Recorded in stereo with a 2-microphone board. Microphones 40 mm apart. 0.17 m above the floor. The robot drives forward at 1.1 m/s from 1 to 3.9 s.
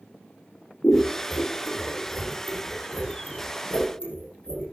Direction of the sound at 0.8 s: 60° left (ahead or behind).